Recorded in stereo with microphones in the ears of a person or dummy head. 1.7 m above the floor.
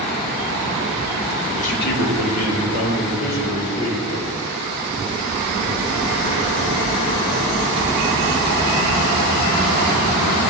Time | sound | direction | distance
1.6 | a man speaking | 40° left (ahead or behind) | 1.4 m